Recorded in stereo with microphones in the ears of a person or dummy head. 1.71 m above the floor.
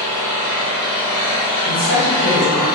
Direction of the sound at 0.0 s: 20° left (ahead or behind).